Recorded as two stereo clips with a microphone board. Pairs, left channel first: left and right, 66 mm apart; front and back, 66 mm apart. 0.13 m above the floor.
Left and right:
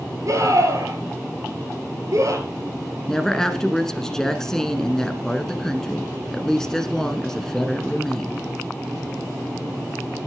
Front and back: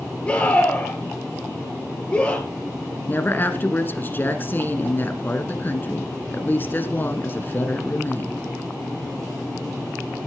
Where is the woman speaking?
15° left, 1.4 m.